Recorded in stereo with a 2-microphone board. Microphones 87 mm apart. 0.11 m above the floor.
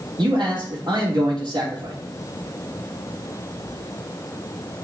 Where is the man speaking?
65° right (ahead or behind), 3.5 m.